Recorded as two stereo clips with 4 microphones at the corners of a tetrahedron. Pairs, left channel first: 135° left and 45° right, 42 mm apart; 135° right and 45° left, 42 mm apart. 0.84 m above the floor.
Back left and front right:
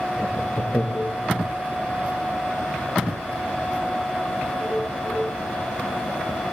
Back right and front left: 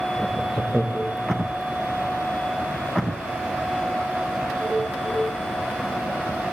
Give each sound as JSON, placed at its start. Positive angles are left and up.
{"t": 0.2, "sound": "laughter", "azimuth_deg": 155, "distance_m": 0.6}